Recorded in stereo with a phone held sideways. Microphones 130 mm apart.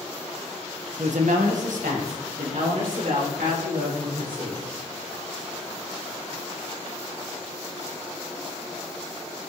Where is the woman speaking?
65° right (ahead or behind), 1.4 m; by 4.6 s 80° right, 5 m.